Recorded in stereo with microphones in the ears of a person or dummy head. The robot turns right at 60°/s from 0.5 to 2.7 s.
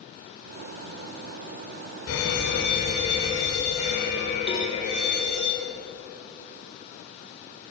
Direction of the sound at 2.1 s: 95° left.